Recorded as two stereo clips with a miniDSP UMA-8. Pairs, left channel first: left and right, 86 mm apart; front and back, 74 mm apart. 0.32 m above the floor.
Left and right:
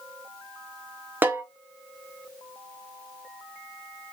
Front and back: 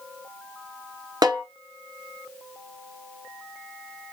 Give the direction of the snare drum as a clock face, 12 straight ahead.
5 o'clock.